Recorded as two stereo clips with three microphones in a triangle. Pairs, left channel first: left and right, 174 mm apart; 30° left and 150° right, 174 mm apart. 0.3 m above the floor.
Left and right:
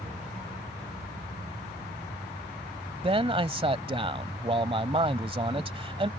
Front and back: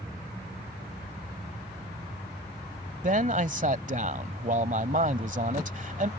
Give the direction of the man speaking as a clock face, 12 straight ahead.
5 o'clock.